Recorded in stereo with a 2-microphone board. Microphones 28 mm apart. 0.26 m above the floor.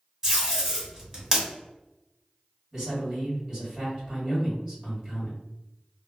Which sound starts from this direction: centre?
Tape being pulled, at 0.2 s.